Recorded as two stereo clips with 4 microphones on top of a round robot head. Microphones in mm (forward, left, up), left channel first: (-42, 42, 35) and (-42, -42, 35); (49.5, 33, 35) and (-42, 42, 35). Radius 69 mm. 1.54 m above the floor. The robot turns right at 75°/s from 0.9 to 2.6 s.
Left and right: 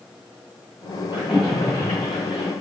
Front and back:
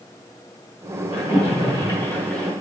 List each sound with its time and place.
1.1 s a splash: 15° right, 2.5 m; by 2.5 s 90° left, 2.5 m